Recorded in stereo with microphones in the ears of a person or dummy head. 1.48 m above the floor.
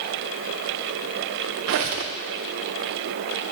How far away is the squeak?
About 0.8 m.